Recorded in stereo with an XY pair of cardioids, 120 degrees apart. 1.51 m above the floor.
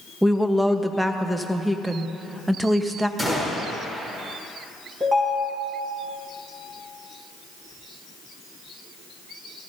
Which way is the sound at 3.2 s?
20° right.